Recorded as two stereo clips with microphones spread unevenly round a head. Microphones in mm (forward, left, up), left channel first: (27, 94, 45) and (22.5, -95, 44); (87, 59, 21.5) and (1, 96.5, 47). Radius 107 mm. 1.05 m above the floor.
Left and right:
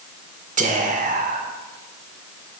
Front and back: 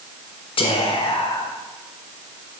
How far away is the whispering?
About 1.0 m.